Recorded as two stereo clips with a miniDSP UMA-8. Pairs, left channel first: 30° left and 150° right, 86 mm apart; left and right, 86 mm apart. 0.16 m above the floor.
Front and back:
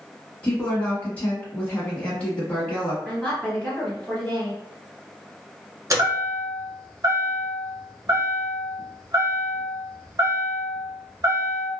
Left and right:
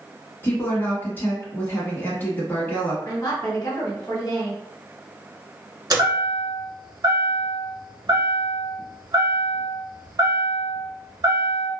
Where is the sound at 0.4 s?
75° left, 1.0 m.